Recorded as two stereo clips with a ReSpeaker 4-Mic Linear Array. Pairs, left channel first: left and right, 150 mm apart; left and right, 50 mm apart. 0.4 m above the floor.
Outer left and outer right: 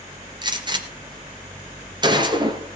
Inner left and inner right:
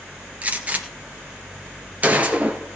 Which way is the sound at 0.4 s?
30° right (ahead or behind).